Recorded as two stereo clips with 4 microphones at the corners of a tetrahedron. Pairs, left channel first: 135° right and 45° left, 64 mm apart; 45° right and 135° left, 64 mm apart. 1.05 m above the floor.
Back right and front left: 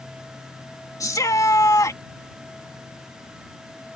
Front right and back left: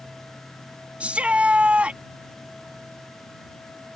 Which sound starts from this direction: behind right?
A shout, at 1.0 s.